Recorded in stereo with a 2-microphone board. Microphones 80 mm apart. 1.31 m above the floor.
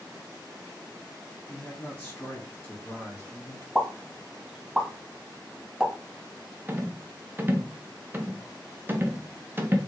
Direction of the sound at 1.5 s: 30° left (ahead or behind).